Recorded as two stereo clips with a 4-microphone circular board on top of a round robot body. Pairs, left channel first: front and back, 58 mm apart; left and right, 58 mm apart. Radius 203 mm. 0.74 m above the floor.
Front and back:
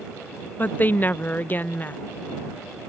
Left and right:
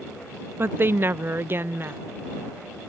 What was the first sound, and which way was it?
A woman speaking, 50° right.